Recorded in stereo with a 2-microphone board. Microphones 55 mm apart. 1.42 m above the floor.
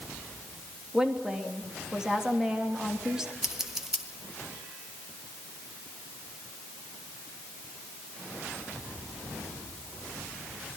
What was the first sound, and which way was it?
A woman speaking, 10° right (ahead or behind).